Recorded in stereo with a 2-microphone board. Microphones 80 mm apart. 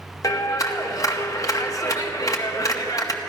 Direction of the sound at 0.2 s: 45° left (ahead or behind).